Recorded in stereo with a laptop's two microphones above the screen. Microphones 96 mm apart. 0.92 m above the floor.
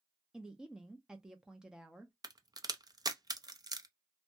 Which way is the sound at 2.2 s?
40° right (ahead or behind).